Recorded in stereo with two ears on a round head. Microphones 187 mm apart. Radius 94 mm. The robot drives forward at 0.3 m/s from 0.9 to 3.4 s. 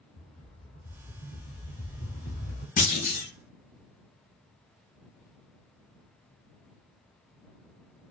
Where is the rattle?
25° left (ahead or behind), 1.1 m; by 2.7 s 40° left (ahead or behind), 0.7 m.